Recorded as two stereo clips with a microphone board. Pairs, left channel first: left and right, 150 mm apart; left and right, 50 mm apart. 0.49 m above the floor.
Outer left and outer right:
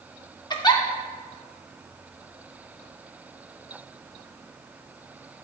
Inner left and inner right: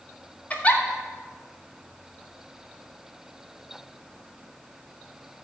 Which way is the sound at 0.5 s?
30° left (ahead or behind).